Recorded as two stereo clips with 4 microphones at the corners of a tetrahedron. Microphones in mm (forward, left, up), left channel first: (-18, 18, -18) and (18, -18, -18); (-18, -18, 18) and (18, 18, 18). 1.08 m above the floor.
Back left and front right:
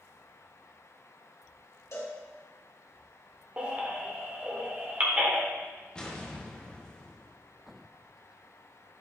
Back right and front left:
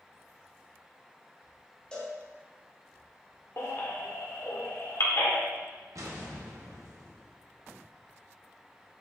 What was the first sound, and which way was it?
A cowbell, 155° left.